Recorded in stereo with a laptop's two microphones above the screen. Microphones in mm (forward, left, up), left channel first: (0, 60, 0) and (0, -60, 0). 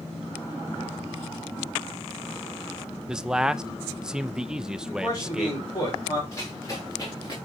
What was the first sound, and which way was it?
A man speaking, 5° right (ahead or behind).